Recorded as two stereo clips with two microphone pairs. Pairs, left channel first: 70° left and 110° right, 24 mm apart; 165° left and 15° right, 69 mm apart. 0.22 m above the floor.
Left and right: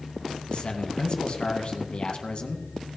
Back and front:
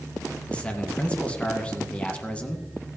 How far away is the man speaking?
About 1.8 m.